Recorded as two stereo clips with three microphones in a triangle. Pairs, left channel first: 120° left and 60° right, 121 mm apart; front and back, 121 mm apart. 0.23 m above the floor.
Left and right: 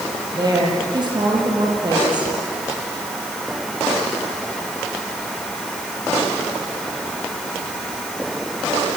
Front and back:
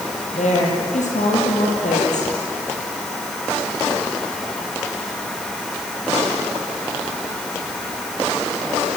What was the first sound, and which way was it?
A woman speaking, 5° right.